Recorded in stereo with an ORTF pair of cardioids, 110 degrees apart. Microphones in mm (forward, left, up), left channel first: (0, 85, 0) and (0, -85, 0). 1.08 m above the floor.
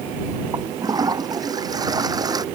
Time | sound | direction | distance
0.5 | a toilet flushing | 25° right | ?